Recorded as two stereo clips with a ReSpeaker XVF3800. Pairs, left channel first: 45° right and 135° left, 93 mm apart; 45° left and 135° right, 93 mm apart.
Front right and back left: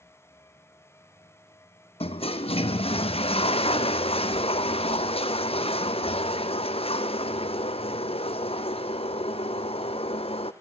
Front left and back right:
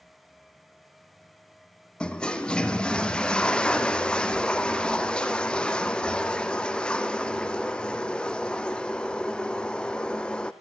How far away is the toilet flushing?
About 1.4 m.